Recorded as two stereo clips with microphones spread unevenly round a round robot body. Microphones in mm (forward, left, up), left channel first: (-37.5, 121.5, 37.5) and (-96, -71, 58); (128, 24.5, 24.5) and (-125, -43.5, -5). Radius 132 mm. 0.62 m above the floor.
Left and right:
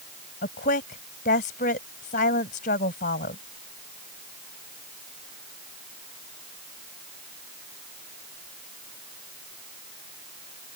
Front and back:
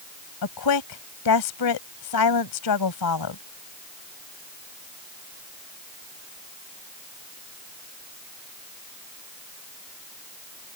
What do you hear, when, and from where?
0.4 s a woman speaking: 15° left